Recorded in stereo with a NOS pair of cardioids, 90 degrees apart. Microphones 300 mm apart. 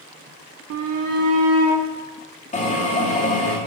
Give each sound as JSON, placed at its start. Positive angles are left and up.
{"t": 0.7, "sound": "a shout", "azimuth_deg": -55, "distance_m": 0.6}
{"t": 2.5, "sound": "a drill", "azimuth_deg": 25, "distance_m": 2.5}